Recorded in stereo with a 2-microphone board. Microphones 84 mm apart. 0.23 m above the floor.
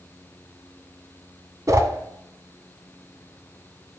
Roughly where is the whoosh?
Right.